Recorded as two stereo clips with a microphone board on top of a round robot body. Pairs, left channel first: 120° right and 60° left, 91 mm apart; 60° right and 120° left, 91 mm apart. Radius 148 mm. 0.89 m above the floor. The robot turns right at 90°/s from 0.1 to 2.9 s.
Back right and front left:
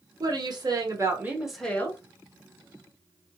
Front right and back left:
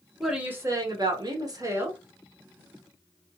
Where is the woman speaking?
30° left, 1.2 m; by 2.0 s 170° right, 1.2 m.